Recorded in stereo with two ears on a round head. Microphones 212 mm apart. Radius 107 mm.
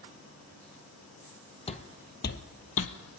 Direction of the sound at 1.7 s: 25° left (ahead or behind).